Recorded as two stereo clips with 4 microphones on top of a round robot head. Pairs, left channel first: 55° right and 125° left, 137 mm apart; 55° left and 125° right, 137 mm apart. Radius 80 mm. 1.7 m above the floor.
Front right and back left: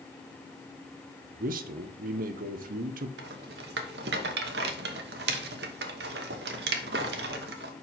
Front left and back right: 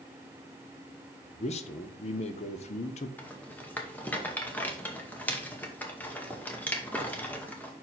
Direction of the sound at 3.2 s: 130° left.